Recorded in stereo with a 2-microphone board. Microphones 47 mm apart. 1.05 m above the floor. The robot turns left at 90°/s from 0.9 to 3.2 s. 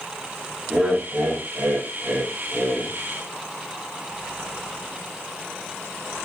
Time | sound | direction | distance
0.7 | laughter | 30° right | 0.7 m